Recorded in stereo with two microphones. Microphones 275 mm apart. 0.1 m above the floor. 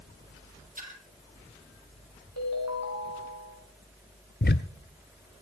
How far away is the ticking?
About 0.5 m.